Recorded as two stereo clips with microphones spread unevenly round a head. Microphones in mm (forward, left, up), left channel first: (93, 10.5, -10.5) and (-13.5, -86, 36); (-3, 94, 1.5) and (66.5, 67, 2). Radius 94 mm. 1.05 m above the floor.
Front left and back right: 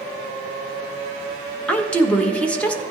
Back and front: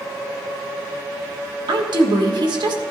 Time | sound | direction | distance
1.7 | a woman speaking | 30° right | 1.2 m